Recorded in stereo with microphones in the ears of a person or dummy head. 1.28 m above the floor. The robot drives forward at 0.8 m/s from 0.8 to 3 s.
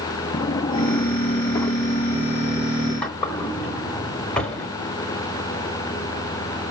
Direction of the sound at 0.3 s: 20° left (ahead or behind).